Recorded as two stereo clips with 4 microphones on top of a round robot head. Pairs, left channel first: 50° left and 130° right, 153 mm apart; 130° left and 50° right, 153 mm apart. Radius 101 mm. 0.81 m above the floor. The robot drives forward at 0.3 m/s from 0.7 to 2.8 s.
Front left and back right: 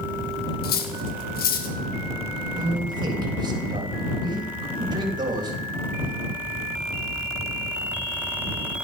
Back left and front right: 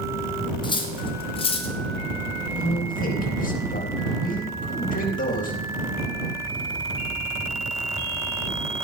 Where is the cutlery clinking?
70° left, 2.5 m; by 1.8 s 80° left, 2 m.